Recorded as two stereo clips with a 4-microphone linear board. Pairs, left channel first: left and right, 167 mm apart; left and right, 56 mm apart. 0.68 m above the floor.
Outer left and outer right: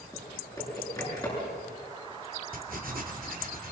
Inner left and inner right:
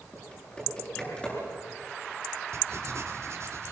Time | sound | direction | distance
0.1 | typing on a keyboard | 20° left (ahead or behind) | 9.5 m
2.5 | writing | 60° right (ahead or behind) | 2.5 m